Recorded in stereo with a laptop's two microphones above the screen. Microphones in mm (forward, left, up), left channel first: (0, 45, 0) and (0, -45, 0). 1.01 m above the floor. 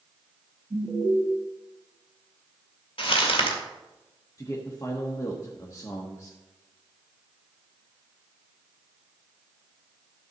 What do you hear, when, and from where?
0.7 s an alarm: 40° right (ahead or behind), 3 m
3.0 s crumpling: 85° left, 2 m
4.4 s a man speaking: 35° left (ahead or behind), 1.4 m